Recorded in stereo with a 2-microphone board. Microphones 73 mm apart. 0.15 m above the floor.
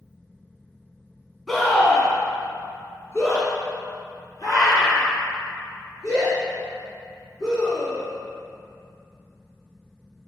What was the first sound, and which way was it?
A scream, centre (ahead or behind).